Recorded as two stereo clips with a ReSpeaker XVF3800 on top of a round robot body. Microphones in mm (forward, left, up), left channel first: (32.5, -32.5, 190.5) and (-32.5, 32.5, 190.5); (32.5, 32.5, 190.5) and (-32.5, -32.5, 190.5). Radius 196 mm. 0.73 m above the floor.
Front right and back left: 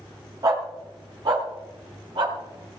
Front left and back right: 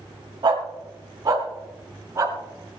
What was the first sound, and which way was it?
A dog barking, 175° right.